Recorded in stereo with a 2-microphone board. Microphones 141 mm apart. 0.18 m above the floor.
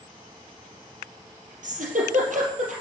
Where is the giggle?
65° right (ahead or behind), 4 m.